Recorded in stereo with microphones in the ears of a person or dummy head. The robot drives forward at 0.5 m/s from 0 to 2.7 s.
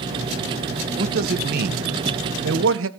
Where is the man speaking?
50° right (ahead or behind), 1.3 m; by 2.9 s 65° right (ahead or behind), 1.1 m.